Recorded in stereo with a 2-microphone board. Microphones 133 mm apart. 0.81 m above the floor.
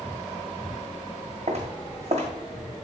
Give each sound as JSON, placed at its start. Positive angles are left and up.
{"t": 1.5, "sound": "footsteps", "side_deg": -50, "distance_m": 1.7}